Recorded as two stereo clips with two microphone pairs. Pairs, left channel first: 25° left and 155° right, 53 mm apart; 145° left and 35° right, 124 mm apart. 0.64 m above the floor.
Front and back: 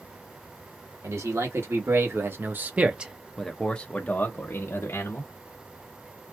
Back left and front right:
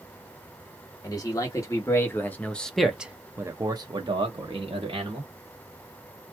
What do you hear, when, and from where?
1.0 s a man speaking: 155° right, 1.3 m; by 5.3 s straight ahead, 1.2 m